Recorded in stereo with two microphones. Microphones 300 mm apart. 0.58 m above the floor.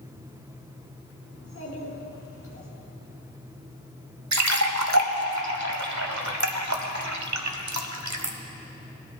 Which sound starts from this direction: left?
A child speaking, at 1.3 s.